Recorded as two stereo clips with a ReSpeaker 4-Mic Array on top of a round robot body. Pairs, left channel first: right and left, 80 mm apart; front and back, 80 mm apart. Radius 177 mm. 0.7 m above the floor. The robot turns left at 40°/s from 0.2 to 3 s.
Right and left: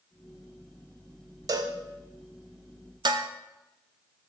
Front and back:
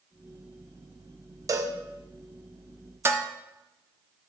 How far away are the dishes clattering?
About 0.8 m.